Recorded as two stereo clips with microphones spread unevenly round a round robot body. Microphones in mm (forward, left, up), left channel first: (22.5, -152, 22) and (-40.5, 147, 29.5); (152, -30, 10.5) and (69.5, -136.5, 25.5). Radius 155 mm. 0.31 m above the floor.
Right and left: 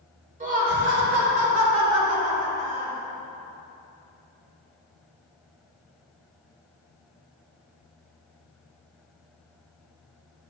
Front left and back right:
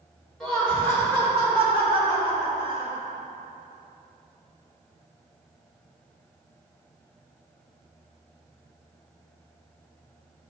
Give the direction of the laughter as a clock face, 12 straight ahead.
8 o'clock.